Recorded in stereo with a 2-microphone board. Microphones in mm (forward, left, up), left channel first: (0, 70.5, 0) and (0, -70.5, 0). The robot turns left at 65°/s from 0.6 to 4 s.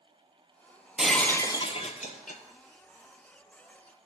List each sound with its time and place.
1.0 s breaking glass: 175° right, 0.5 m; by 2.4 s 90° left, 0.5 m